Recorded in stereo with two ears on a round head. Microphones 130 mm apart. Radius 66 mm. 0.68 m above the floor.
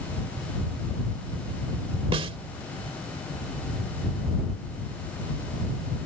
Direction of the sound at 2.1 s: 40° right (ahead or behind).